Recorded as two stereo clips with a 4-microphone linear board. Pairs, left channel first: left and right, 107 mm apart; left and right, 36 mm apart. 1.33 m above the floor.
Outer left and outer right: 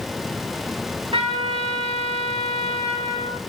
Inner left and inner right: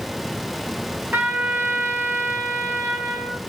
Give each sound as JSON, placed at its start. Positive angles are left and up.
{"t": 1.1, "sound": "a trumpet", "side_deg": -65, "distance_m": 3.5}